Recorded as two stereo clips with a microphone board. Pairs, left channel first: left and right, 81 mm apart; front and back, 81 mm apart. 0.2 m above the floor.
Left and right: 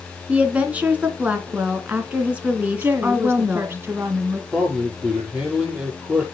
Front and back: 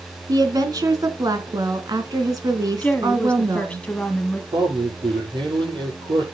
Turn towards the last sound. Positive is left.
turn(degrees=-165)